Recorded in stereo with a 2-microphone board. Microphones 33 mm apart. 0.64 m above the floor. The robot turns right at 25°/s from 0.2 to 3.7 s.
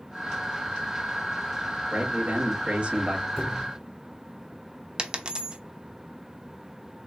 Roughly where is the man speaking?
Right.